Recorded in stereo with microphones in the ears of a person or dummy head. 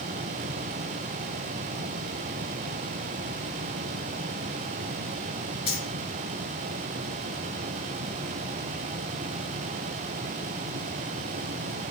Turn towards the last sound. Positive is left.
turn(degrees=25)  # may be behind; listen again after turning